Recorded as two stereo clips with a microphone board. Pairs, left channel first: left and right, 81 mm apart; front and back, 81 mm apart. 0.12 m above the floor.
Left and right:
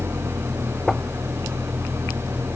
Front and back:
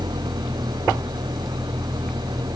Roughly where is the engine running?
Behind right.